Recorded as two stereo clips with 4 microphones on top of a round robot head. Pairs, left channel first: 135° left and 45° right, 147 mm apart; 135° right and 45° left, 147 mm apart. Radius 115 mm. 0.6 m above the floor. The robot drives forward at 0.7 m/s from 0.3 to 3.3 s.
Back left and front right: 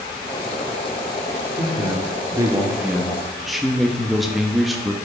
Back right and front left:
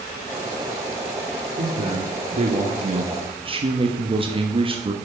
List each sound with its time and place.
1.6 s a man speaking: 15° left, 1.9 m; by 4.9 s 45° left, 1.1 m